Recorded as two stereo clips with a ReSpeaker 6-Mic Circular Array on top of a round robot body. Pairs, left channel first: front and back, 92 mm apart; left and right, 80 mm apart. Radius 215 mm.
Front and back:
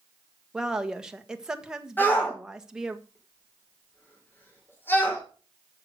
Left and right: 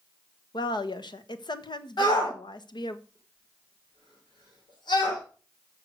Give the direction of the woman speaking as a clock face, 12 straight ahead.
9 o'clock.